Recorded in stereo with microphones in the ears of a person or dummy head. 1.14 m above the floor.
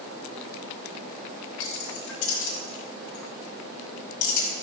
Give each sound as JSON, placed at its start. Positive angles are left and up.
{"t": 1.6, "sound": "keys jangling", "side_deg": 75, "distance_m": 5.0}